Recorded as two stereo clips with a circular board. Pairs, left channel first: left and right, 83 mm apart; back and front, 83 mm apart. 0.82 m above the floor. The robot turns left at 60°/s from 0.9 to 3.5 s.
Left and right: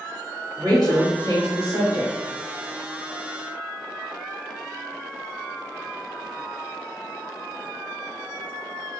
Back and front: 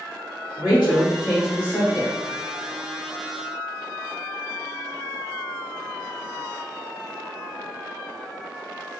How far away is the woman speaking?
About 1.3 m.